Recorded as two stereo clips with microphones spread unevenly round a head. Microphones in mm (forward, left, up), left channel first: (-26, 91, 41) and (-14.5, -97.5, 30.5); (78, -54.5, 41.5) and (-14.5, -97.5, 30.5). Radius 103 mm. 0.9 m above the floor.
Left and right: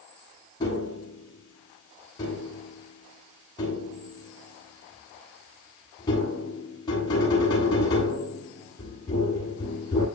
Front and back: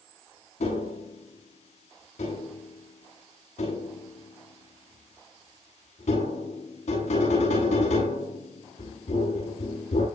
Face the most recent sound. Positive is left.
turn(degrees=25)